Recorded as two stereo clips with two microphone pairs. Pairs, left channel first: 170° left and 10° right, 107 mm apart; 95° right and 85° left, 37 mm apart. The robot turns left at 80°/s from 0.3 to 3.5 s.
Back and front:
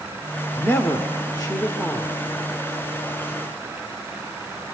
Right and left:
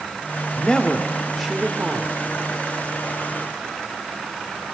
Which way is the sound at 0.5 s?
130° right.